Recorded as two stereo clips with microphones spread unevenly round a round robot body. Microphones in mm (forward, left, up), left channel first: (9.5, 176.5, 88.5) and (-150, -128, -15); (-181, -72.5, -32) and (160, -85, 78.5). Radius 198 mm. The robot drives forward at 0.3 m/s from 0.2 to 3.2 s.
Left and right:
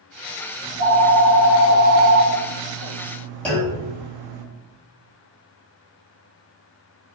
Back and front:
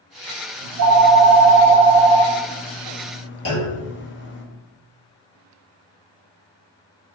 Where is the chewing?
I don't hear chewing.